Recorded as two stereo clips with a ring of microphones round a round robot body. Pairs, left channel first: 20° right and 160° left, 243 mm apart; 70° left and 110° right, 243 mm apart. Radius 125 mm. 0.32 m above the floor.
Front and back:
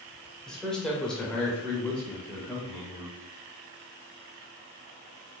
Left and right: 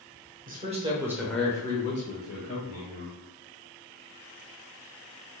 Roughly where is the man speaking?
Right.